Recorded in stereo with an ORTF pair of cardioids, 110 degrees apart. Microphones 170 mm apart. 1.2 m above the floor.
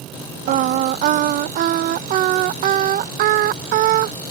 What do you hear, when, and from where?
0.5 s singing: 60° right